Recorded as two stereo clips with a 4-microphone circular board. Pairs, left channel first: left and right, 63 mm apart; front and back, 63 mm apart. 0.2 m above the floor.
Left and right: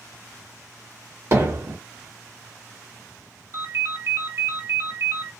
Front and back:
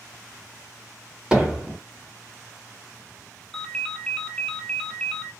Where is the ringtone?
75° right, 0.7 m.